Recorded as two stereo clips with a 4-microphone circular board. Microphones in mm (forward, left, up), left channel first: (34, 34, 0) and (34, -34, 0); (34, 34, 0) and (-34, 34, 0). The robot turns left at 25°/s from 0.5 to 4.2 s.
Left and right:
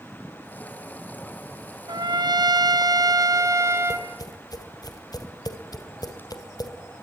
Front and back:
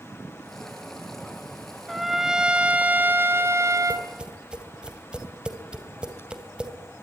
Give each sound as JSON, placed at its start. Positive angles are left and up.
{"t": 1.9, "sound": "a trumpet", "azimuth_deg": -90, "distance_m": 2.0}
{"t": 3.9, "sound": "tapping", "azimuth_deg": 110, "distance_m": 2.5}